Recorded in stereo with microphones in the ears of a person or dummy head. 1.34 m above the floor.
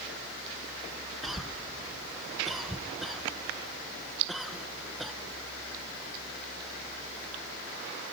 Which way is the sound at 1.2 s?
Centre (ahead or behind).